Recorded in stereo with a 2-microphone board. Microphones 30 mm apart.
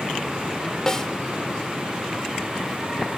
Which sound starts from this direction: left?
A snare drum, at 0.9 s.